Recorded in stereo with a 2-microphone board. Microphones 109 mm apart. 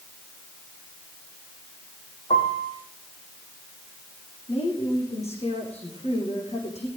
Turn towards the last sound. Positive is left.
turn(degrees=75)  # may be behind; listen again after turning